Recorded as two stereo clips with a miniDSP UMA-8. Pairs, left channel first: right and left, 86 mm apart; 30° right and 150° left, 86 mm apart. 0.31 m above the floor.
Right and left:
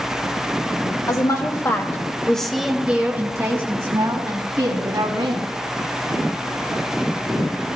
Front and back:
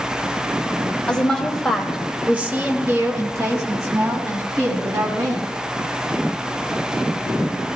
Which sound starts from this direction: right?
A woman speaking, at 1.1 s.